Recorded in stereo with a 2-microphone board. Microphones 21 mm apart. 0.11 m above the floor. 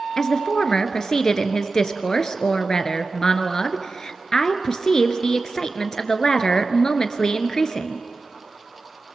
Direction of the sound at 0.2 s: 35° left (ahead or behind).